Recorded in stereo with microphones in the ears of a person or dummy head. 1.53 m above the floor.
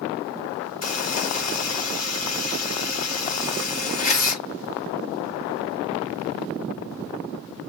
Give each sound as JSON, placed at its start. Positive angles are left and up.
{"t": 0.8, "sound": "a buzzer", "side_deg": 35, "distance_m": 1.7}